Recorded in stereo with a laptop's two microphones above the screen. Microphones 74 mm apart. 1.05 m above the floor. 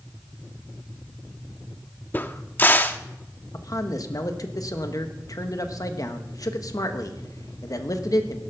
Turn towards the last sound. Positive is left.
turn(degrees=50)  # may be behind; listen again after turning